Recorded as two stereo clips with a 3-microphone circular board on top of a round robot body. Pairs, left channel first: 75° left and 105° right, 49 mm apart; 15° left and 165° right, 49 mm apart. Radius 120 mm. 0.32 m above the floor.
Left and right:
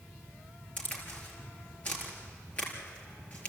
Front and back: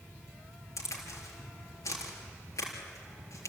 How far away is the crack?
About 4 m.